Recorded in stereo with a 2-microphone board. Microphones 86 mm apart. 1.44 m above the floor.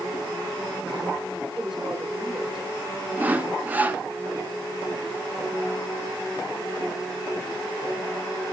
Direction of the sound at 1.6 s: 5° right (ahead or behind).